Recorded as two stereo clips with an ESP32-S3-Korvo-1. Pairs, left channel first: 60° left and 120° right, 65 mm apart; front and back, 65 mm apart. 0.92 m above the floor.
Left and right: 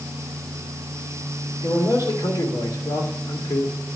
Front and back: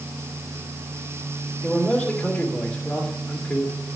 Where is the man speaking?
70° left, 2.5 m.